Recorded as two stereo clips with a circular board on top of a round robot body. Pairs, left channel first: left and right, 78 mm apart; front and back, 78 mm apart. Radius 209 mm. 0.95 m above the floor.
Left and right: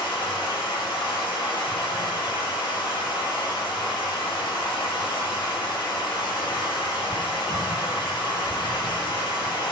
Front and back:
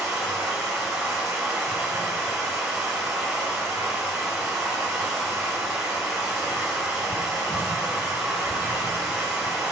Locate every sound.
0.0 s running water: 100° left, 1.2 m